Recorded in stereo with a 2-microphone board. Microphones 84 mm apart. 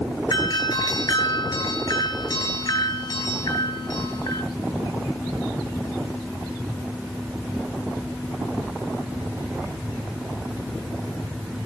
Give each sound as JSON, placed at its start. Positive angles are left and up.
{"t": 0.3, "sound": "a doorbell", "side_deg": 50, "distance_m": 8.5}